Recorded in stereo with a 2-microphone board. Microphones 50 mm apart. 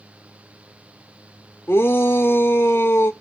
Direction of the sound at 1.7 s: 60° left (ahead or behind).